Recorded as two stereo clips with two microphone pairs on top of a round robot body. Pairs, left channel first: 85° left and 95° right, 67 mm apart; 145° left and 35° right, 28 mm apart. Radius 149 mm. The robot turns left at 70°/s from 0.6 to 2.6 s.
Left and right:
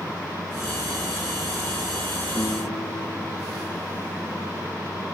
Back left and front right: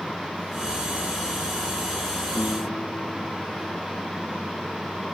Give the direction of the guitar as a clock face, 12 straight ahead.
7 o'clock.